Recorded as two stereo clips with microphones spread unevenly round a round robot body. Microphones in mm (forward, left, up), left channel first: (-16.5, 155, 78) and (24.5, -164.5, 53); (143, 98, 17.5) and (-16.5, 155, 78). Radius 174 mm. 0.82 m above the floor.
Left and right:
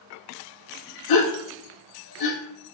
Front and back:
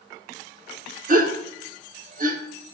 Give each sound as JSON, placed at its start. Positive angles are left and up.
{"t": 1.1, "sound": "a gasp", "azimuth_deg": 120, "distance_m": 3.0}